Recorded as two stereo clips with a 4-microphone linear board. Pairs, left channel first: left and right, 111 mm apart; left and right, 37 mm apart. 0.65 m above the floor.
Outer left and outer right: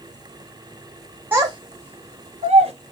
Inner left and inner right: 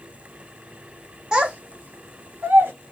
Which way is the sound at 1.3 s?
20° right (ahead or behind).